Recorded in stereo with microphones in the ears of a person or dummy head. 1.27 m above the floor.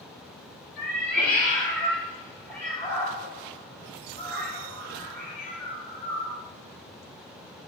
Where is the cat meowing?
10° left (ahead or behind), 1.1 m.